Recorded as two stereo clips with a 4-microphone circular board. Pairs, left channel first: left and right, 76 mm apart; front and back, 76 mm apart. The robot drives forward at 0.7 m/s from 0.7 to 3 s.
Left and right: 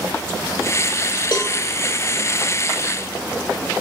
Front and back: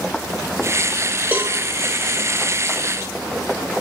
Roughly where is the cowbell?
Behind left.